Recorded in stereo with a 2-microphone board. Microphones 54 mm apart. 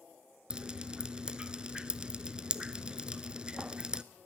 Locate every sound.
0.5 s dripping: 20° right (ahead or behind), 0.6 m